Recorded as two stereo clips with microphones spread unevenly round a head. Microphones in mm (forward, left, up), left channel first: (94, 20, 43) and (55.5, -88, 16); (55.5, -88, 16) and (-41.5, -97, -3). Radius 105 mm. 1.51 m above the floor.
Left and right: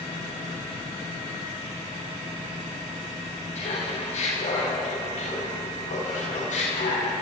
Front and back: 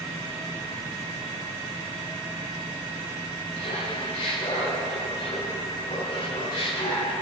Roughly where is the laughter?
Ahead left.